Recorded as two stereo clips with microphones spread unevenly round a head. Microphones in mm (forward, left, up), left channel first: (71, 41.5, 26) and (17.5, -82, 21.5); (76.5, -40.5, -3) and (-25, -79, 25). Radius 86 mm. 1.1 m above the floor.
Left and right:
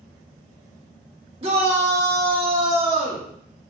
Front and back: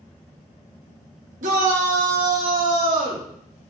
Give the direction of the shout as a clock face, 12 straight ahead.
6 o'clock.